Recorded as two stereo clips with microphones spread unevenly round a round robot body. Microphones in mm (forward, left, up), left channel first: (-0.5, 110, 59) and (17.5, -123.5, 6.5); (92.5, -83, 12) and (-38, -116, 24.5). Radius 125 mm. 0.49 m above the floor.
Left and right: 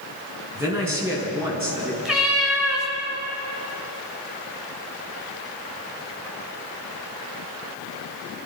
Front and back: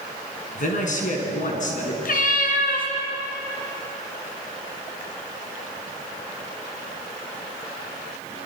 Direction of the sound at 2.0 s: 5° left.